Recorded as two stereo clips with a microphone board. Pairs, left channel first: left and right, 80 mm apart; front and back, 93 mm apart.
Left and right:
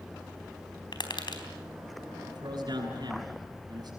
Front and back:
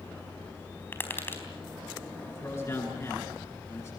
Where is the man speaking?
55° right, 9 m.